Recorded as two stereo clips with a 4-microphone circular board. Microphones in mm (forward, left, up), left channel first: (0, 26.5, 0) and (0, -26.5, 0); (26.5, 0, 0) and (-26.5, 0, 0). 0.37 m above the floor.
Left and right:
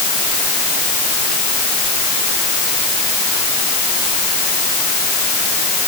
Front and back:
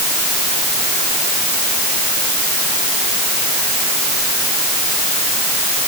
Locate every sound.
Only background noise.